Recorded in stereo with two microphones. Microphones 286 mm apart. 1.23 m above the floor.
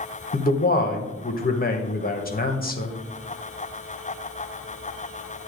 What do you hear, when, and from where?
0.3 s a man speaking: 35° left (ahead or behind), 0.8 m